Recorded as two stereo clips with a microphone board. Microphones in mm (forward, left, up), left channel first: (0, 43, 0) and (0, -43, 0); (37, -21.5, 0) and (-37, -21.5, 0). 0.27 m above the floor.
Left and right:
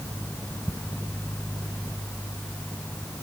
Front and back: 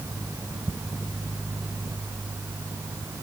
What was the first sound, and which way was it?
Only background noise.